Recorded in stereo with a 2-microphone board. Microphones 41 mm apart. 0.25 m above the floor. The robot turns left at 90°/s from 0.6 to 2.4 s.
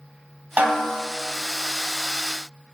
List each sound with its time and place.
0.6 s a snare drum: 130° right, 1.0 m; by 1.1 s 170° right, 1.0 m